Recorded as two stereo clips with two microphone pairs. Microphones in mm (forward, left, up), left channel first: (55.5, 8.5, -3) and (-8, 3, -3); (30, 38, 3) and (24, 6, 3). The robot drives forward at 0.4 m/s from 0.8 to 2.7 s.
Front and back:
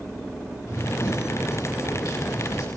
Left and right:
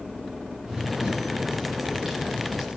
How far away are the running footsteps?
About 7 m.